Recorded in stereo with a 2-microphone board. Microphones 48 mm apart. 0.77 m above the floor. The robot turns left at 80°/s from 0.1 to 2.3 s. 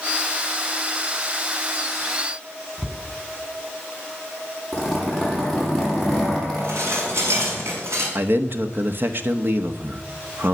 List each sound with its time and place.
2.8 s a cupboard door: 15° right (ahead or behind), 2.5 m
4.7 s a zipper: 5° left (ahead or behind), 9 m
6.6 s dishes clattering: 70° right (ahead or behind), 6 m
8.2 s a man speaking: 50° right (ahead or behind), 1.2 m